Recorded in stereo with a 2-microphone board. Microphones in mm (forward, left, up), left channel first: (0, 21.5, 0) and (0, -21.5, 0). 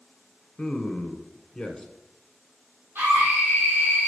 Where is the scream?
55° right (ahead or behind), 4.5 m.